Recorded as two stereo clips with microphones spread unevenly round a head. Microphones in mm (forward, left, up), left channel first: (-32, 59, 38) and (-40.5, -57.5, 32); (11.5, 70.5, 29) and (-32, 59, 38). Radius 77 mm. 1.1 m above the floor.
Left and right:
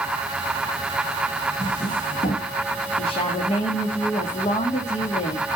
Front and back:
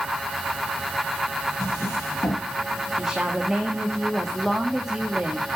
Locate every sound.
1.6 s a drawer: 45° left, 7 m
3.0 s a woman speaking: 115° left, 2 m